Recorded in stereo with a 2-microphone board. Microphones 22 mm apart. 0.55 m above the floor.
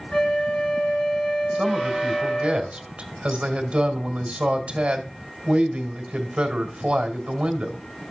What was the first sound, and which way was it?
A flute, 55° left (ahead or behind).